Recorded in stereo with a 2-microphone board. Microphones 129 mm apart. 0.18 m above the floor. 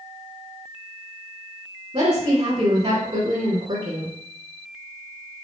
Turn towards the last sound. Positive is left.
turn(degrees=-45)  # may be behind; listen again after turning